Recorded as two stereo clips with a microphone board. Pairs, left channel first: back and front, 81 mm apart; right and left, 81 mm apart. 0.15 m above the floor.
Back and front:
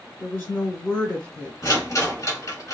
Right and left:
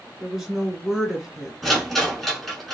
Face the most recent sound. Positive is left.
turn(degrees=-175)